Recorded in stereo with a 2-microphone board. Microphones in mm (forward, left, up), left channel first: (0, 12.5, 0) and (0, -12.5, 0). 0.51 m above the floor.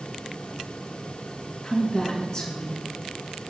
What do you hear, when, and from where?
1.6 s a woman speaking: 20° left (ahead or behind), 5 m